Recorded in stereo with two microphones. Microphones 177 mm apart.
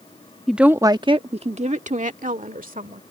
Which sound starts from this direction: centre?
A woman speaking, at 0.5 s.